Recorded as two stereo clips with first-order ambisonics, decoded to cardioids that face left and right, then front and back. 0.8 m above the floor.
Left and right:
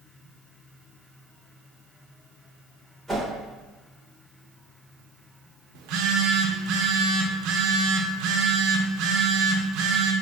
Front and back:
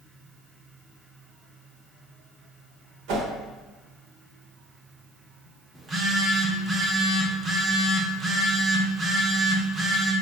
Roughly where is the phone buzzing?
Right.